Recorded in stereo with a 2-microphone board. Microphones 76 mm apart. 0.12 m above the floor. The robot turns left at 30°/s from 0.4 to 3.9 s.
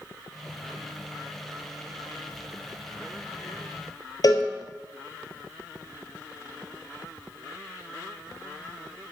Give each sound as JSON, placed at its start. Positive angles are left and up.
{"t": 4.2, "sound": "a cowbell", "side_deg": 55, "distance_m": 1.2}